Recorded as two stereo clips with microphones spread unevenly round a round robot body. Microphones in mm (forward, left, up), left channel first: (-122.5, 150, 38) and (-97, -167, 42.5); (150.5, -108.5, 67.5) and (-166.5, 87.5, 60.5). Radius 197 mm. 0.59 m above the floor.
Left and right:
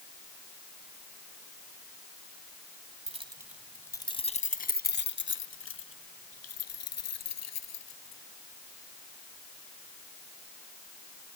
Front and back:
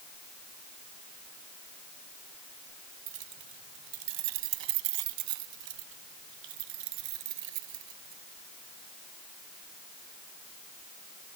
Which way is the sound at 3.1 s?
155° right.